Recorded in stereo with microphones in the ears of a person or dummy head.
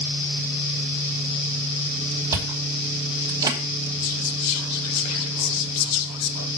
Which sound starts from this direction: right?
Chewing, at 2.3 s.